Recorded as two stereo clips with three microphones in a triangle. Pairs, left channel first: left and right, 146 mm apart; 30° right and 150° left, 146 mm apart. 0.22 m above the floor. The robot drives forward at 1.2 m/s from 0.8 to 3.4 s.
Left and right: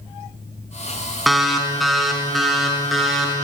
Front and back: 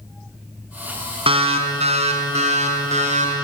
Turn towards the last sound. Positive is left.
turn(degrees=180)